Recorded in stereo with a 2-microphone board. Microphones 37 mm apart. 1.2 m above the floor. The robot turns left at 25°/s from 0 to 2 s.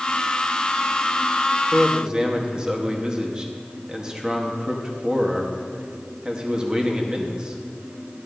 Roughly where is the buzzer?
I don't hear a buzzer.